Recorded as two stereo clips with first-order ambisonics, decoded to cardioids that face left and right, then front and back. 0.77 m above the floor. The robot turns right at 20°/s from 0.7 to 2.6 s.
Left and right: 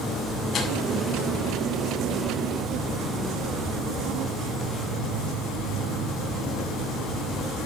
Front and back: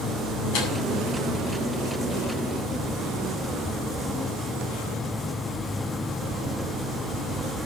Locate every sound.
0.5 s tearing paper: 25° left, 7.5 m